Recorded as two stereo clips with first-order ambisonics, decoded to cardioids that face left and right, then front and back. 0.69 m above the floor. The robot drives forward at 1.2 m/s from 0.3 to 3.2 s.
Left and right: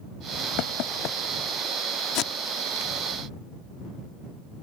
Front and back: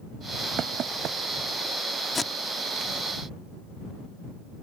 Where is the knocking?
125° left; by 1.2 s 135° left.